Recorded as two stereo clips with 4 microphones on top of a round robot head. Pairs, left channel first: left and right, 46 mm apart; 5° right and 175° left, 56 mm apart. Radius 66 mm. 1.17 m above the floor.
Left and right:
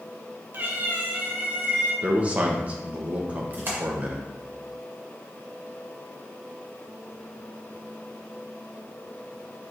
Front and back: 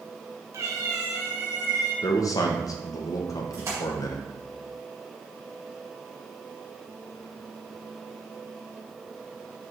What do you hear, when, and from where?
0.5 s a cat meowing: 135° right, 0.7 m; by 1.9 s 140° right, 2.5 m
2.0 s a man speaking: 25° right, 1.0 m
3.5 s a splash: 135° right, 1.9 m